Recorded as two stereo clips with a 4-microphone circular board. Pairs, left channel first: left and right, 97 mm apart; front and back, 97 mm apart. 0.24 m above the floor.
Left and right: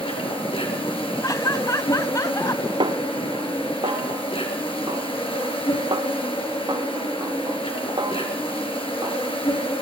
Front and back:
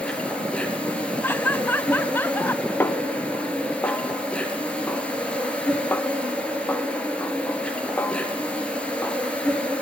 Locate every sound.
0.0 s an insect: 75° left, 6 m
1.2 s laughter: 60° left, 1.4 m
2.8 s a snare drum: 65° right, 0.8 m